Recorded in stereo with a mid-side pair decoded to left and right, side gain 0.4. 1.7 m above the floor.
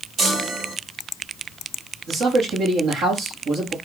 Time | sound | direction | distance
0.2 | a chime | 60° right | 3.5 m
2.1 | a man speaking | 65° right | 2.5 m